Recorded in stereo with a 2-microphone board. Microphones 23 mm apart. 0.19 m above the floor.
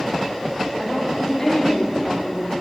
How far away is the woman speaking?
About 7 m.